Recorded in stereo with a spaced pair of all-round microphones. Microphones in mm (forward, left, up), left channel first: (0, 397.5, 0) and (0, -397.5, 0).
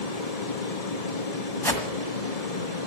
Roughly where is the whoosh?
Centre.